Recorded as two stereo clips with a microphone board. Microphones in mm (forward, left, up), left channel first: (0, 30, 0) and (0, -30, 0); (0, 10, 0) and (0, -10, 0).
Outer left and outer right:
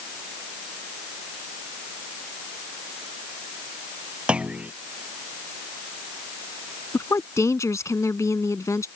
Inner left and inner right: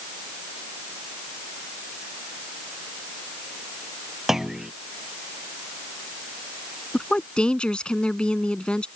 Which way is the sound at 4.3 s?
20° right (ahead or behind).